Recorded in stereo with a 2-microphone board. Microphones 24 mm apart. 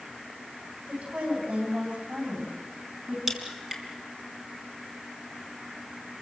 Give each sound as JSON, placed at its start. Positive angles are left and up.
{"t": 0.9, "sound": "a woman speaking", "side_deg": -75, "distance_m": 8.5}
{"t": 3.3, "sound": "a crack", "side_deg": -15, "distance_m": 3.5}